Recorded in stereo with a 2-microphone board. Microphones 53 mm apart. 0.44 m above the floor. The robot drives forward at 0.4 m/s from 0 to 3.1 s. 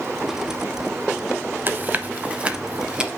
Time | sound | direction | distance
1.7 | chewing | 40° right (ahead or behind) | 0.5 m